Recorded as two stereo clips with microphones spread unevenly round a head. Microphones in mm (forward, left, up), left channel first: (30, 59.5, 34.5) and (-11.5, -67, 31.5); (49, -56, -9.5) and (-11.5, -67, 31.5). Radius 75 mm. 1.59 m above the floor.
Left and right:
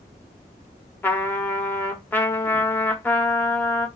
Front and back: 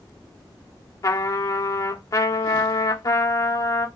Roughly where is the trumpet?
Ahead.